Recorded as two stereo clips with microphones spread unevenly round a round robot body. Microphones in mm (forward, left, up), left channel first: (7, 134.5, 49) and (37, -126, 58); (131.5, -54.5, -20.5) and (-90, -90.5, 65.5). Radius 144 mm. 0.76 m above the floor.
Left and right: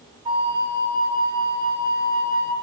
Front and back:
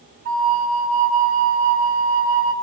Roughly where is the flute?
Behind right.